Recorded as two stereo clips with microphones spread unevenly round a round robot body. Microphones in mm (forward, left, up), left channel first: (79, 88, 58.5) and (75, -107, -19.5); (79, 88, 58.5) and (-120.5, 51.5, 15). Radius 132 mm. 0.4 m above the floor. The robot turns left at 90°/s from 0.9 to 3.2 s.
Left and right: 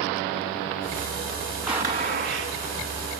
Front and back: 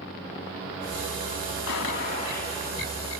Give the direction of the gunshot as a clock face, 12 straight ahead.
12 o'clock.